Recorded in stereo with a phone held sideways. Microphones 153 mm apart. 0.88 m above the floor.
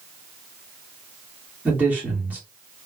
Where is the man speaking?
10° right (ahead or behind), 1.5 m.